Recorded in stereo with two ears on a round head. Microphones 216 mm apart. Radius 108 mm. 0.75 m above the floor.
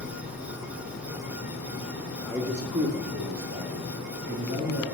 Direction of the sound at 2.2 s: 5° left (ahead or behind).